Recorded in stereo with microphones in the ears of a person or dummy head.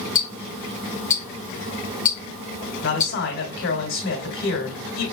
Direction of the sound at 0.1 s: 40° left (ahead or behind).